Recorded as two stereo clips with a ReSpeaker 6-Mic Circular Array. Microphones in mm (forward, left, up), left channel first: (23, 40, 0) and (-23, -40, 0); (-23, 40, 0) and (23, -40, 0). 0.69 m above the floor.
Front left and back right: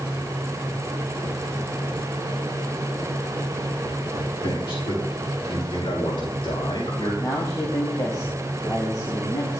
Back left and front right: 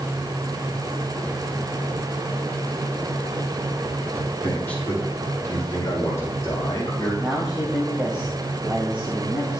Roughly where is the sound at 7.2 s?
Ahead.